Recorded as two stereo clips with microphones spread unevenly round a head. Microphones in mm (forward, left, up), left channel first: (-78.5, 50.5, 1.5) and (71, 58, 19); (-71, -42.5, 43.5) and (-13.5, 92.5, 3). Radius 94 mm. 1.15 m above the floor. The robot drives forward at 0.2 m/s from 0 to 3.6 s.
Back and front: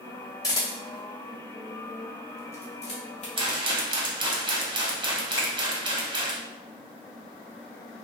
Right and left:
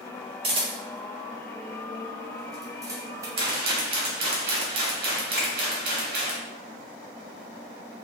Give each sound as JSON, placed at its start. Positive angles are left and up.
{"t": 0.4, "sound": "a camera shutter", "azimuth_deg": 115, "distance_m": 1.0}
{"t": 3.4, "sound": "a rattle", "azimuth_deg": 60, "distance_m": 1.0}
{"t": 5.4, "sound": "a finger snap", "azimuth_deg": -170, "distance_m": 1.8}